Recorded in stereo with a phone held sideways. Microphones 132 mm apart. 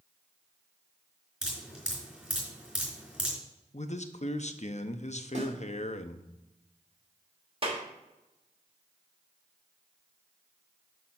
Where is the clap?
40° right (ahead or behind), 1.5 m.